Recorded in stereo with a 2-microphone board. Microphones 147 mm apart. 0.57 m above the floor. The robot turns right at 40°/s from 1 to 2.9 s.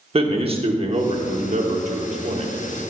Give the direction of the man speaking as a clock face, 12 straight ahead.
4 o'clock.